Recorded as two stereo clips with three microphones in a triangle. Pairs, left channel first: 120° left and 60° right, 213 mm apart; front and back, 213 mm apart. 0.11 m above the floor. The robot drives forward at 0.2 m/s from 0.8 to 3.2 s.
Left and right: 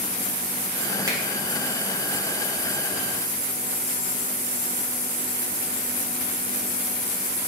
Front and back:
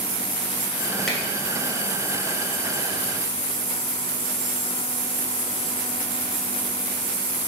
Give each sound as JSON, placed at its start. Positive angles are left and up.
{"t": 1.1, "sound": "a finger snap", "azimuth_deg": -85, "distance_m": 1.0}